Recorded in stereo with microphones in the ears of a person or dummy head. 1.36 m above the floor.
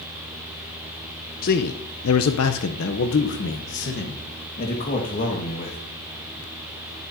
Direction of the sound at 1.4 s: 45° left (ahead or behind).